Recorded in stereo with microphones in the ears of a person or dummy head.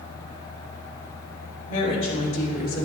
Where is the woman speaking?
40° left (ahead or behind), 2.5 m; by 2.8 s 45° left (ahead or behind), 1.6 m.